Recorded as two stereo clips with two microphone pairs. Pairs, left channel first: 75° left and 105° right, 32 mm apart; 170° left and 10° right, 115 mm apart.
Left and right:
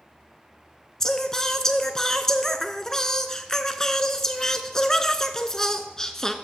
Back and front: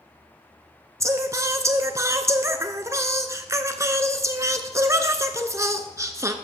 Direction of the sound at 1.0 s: 15° left.